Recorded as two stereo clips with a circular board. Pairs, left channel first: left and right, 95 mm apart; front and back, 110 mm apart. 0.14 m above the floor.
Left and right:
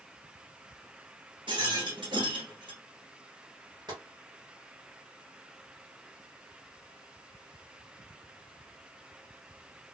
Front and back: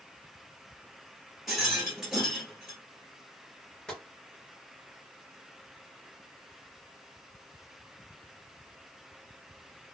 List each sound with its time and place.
1.5 s a rattle: 90° right, 1.4 m
3.9 s tapping: 80° right, 1.9 m